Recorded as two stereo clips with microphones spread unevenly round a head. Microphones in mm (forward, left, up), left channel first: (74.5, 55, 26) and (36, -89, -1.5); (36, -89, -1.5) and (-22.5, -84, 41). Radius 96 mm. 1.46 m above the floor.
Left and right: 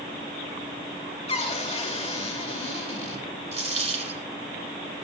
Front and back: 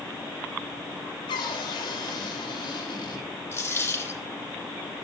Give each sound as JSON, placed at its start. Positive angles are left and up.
{"t": 1.3, "sound": "a cupboard door", "azimuth_deg": 35, "distance_m": 2.0}
{"t": 3.5, "sound": "a dropped coin", "azimuth_deg": -55, "distance_m": 8.5}